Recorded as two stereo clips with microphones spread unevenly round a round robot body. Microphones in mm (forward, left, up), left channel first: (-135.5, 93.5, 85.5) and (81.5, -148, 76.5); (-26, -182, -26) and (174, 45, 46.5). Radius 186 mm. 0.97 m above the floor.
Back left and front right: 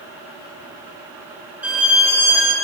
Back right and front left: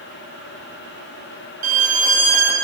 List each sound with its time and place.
1.6 s a violin: 35° left, 1.6 m